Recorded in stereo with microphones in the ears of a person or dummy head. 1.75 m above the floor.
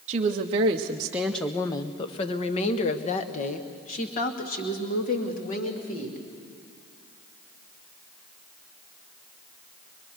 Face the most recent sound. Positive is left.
turn(degrees=45)  # may be behind; listen again after turning